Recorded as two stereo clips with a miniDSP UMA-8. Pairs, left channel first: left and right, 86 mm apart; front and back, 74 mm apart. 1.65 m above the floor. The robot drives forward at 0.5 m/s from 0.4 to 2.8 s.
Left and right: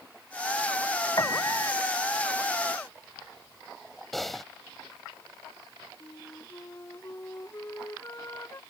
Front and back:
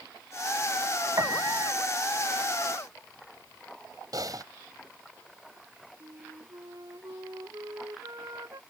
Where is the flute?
145° left.